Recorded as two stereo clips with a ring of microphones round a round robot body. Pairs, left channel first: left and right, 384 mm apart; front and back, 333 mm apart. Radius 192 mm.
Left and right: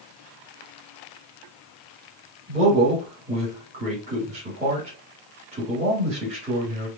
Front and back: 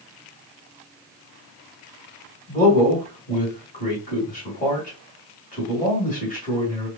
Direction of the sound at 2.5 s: 35° right.